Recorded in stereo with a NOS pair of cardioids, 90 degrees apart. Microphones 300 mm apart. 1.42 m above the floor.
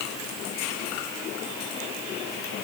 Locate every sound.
Only background noise.